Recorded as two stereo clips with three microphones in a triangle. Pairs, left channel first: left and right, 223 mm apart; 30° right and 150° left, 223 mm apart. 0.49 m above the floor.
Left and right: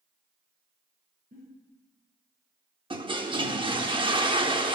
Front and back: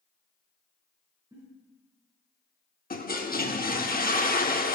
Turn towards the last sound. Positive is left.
turn(degrees=-35)